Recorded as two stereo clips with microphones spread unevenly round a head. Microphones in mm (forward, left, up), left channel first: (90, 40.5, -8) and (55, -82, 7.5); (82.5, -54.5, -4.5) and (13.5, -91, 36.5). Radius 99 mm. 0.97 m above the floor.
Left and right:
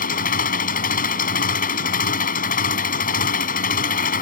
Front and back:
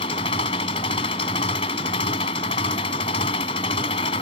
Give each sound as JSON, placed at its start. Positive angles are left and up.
{"t": 0.0, "sound": "an engine running", "azimuth_deg": 70}